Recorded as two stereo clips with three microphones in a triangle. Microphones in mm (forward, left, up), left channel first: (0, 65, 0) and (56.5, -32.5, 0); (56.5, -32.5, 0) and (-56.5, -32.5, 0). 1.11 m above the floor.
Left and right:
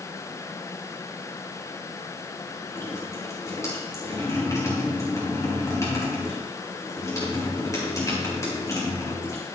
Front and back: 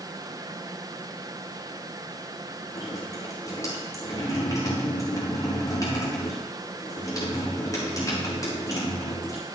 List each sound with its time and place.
2.8 s dripping: 55° left, 8 m